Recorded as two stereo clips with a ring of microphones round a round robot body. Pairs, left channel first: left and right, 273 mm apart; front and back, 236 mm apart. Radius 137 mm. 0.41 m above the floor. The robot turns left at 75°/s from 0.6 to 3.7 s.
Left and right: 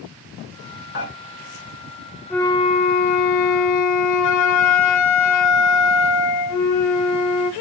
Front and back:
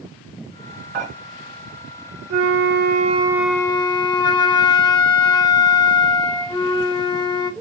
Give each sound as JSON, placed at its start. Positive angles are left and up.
{"t": 0.9, "sound": "dishes clattering", "azimuth_deg": 145, "distance_m": 1.8}
{"t": 2.3, "sound": "a flute", "azimuth_deg": 175, "distance_m": 0.6}